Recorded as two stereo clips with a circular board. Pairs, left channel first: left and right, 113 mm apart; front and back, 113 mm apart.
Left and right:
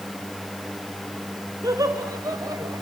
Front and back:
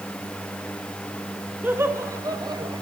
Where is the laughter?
120° right, 1.7 m; by 2.8 s 145° right, 2.5 m.